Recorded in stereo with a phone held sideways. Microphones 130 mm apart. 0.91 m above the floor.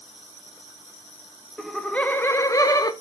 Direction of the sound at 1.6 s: Centre (ahead or behind).